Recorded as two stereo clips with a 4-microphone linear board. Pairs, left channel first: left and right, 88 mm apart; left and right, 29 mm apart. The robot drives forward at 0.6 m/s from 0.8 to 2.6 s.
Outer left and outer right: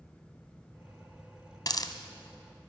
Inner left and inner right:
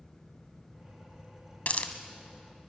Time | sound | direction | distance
1.7 | a hiss | 55° left (ahead or behind) | 1.2 m